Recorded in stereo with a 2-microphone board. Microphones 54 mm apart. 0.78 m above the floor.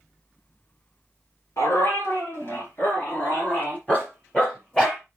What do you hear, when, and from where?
1.6 s a dog barking: 55° left (ahead or behind), 3.5 m; by 5.0 s 15° left (ahead or behind), 4.5 m